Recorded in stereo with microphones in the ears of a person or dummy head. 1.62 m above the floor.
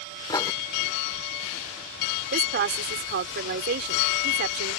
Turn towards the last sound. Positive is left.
turn(degrees=-60)  # may be behind; listen again after turning